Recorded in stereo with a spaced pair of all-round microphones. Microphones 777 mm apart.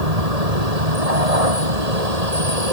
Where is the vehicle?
50° right (ahead or behind).